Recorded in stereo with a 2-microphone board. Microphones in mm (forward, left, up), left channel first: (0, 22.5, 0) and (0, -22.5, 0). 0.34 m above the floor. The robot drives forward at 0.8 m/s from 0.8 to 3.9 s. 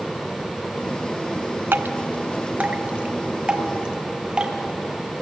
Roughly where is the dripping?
Right.